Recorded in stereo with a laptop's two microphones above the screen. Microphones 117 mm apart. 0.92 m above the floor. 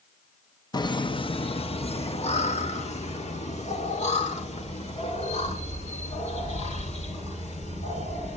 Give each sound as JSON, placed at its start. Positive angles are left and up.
{"t": 0.7, "sound": "laughter", "side_deg": 35, "distance_m": 0.7}